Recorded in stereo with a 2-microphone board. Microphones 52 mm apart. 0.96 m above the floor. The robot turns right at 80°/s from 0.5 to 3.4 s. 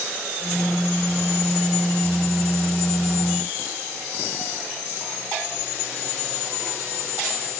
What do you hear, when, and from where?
Only background noise.